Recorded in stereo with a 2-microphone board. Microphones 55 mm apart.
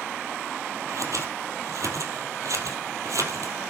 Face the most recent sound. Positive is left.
turn(degrees=-75)  # may be behind; listen again after turning